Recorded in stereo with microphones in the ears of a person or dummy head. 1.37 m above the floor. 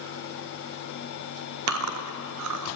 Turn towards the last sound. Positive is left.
turn(degrees=-80)